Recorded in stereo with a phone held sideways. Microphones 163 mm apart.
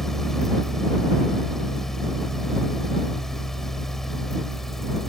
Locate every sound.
0.0 s a fan: centre (ahead or behind)